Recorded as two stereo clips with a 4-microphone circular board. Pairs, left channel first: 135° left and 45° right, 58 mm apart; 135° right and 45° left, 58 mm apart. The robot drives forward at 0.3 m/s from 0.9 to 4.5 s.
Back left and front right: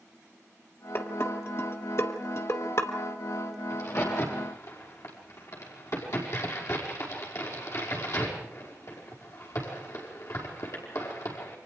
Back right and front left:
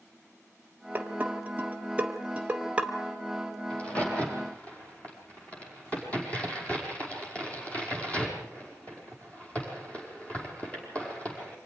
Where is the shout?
I don't hear a shout.